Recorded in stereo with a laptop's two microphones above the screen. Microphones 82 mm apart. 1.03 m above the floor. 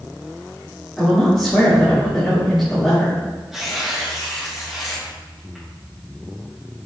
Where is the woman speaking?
Centre (ahead or behind), 3.5 m.